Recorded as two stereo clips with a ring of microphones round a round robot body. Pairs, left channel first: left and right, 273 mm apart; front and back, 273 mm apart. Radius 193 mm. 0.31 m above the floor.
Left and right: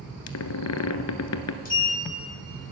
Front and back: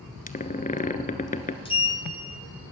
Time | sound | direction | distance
0.3 | a squeak | 65° left | 1.1 m
1.6 | a sliding door | 55° left | 1.6 m